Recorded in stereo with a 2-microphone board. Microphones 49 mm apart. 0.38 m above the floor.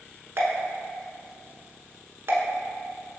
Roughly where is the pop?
Right.